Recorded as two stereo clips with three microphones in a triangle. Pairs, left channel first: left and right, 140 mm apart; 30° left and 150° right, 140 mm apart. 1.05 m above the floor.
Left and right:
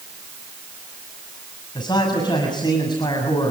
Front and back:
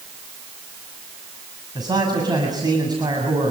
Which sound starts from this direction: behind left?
A man speaking, at 1.8 s.